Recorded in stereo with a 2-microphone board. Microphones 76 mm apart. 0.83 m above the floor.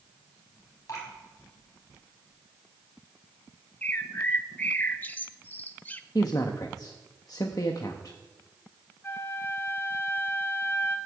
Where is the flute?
30° left (ahead or behind), 1.3 m.